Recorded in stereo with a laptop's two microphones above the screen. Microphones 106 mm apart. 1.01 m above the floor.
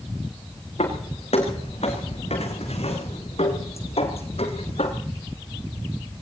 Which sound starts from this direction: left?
Footsteps, at 0.8 s.